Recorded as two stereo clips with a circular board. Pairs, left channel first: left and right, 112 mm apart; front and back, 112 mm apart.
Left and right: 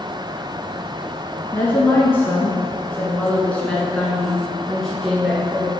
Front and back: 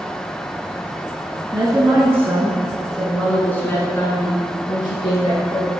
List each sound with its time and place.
1.5 s a woman speaking: 145° left, 1.5 m; by 5.7 s straight ahead, 2.0 m